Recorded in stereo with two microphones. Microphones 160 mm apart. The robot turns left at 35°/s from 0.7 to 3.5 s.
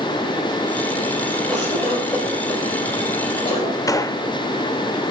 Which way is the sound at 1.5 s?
Centre (ahead or behind).